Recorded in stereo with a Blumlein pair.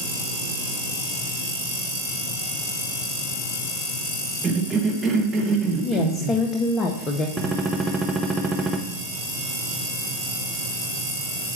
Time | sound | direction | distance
4.4 | a cough | 20° right | 1.2 m
5.8 | a woman speaking | 20° left | 0.6 m
7.4 | a gunshot | 5° right | 0.7 m